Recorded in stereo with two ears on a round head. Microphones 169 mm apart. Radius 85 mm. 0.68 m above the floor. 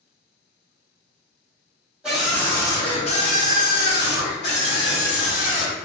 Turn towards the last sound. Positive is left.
turn(degrees=70)  # may be behind; listen again after turning